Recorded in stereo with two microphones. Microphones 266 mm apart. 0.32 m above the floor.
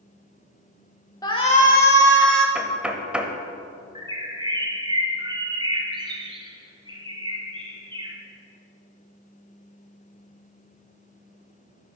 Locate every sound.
1.2 s a shout: 15° left (ahead or behind), 1.1 m; by 2.5 s 45° left (ahead or behind), 1.5 m
2.5 s knocking: 5° right (ahead or behind), 0.7 m
4.0 s a bird: 15° right (ahead or behind), 1.1 m